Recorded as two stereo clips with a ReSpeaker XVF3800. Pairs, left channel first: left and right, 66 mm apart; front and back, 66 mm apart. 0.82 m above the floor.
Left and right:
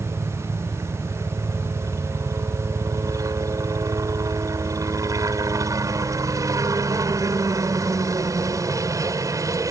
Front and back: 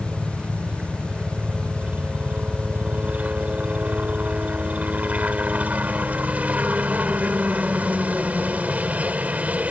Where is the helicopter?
115° right.